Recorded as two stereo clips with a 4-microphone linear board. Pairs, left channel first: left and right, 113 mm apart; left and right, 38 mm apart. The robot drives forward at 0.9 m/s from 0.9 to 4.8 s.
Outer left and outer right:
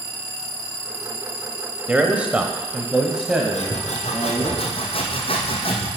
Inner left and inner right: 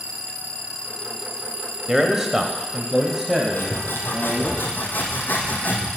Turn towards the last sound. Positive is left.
turn(degrees=55)  # may be behind; listen again after turning